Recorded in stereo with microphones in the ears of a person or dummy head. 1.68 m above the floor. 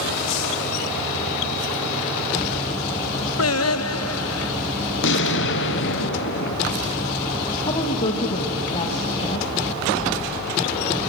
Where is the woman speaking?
25° left (ahead or behind), 1.6 m.